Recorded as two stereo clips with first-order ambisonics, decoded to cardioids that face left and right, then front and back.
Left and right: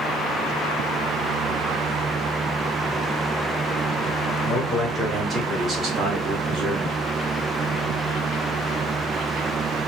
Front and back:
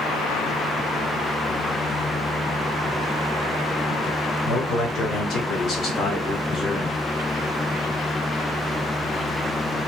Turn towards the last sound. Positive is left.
turn(degrees=-70)